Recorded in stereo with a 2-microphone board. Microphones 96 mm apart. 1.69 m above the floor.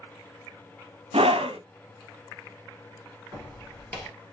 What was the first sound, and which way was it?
A scream, 90° right.